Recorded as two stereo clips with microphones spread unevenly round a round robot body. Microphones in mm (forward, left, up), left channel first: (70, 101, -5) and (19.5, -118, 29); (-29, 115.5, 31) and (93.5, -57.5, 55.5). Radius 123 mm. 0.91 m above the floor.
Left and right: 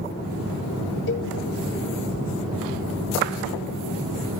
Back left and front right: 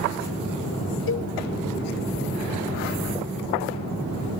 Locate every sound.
1.1 s a cowbell: 110° left, 0.6 m